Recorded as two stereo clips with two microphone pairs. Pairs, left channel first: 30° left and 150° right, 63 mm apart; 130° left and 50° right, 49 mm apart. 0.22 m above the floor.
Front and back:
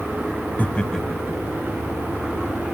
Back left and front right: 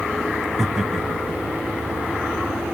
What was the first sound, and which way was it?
Laughter, 35° left.